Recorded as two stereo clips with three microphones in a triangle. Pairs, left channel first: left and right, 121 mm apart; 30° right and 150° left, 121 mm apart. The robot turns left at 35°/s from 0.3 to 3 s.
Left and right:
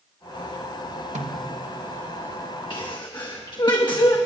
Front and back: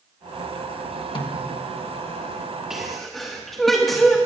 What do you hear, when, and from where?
1.1 s a snare drum: 75° right, 1.3 m; by 1.6 s 90° right, 1.3 m
2.7 s a sneeze: 70° left, 1.2 m; by 4.2 s 60° left, 1.2 m